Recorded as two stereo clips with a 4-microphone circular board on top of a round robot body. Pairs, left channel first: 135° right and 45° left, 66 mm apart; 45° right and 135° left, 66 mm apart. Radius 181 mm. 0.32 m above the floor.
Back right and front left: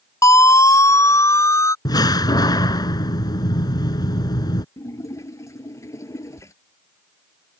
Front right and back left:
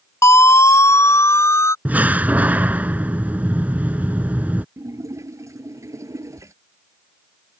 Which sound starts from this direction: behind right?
A door slam, at 1.9 s.